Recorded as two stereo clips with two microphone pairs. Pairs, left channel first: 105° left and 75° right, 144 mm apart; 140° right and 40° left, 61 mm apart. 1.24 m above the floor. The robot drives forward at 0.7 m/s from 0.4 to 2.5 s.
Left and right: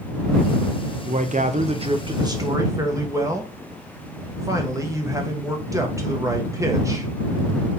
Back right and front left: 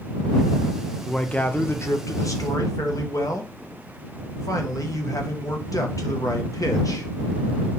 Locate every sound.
1.1 s a man speaking: 60° right, 0.7 m; by 7.1 s 140° right, 1.0 m